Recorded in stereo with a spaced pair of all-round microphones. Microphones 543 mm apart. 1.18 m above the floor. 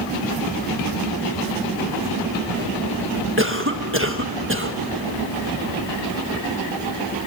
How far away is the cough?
About 1.5 m.